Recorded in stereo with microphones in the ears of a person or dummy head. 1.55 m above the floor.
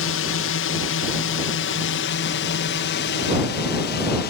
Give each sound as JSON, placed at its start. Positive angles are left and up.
{"t": 0.0, "sound": "a drone", "side_deg": 60}